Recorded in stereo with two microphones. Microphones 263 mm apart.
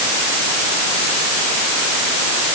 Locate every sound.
Only background noise.